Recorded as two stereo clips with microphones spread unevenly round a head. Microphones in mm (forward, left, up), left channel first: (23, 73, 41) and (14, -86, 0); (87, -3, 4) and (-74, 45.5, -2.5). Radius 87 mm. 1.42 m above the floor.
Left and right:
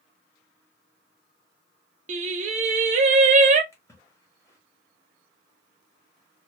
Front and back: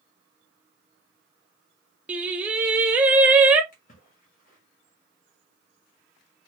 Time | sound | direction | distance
2.1 | singing | 120° right | 0.5 m
3.7 | a splash | 20° left | 1.5 m